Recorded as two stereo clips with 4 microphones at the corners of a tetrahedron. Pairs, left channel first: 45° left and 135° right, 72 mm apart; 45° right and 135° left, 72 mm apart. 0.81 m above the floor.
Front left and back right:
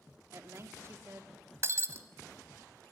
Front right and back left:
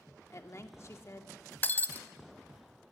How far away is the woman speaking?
About 2.0 m.